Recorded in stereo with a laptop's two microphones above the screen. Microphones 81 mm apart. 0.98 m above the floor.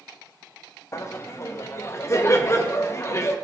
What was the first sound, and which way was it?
Laughter, 35° left (ahead or behind).